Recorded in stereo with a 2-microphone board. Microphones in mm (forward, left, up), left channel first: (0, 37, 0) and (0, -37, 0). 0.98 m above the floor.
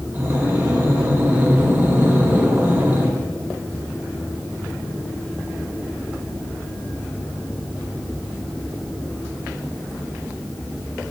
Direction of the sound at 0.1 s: 30° right (ahead or behind).